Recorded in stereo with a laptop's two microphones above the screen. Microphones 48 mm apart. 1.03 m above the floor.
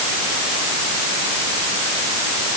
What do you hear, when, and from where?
Only background noise.